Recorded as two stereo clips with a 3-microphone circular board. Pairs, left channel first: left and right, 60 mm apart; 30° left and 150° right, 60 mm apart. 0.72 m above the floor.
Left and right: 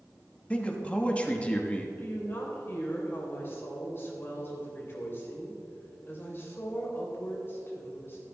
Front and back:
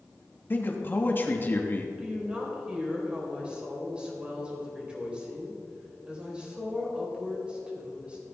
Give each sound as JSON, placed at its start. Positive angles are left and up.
{"t": 0.5, "sound": "a man speaking", "azimuth_deg": 35, "distance_m": 1.3}
{"t": 2.0, "sound": "a woman speaking", "azimuth_deg": 140, "distance_m": 3.5}